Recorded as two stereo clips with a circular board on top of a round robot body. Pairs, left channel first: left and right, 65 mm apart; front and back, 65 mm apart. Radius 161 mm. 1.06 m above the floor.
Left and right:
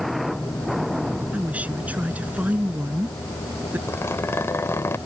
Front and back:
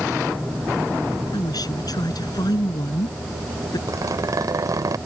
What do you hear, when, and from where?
1.3 s a woman speaking: 20° right; by 3.8 s 25° right
3.9 s a zipper: 145° left